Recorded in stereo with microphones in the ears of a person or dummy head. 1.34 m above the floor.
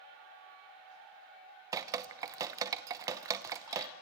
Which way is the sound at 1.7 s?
20° right (ahead or behind).